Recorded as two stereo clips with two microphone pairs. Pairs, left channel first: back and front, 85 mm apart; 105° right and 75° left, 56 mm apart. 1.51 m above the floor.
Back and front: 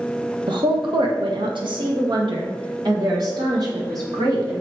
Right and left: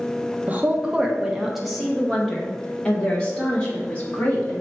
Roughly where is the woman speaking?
Ahead.